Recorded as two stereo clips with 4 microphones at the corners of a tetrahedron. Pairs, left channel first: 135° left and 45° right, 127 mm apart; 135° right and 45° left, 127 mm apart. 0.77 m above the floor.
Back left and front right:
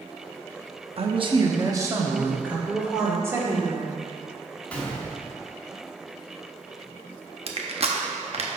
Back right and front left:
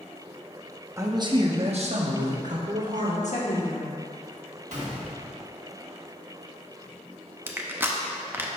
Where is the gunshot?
55° left, 1.4 m.